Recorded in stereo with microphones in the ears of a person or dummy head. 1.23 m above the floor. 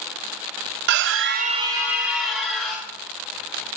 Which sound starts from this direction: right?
A scream, at 0.9 s.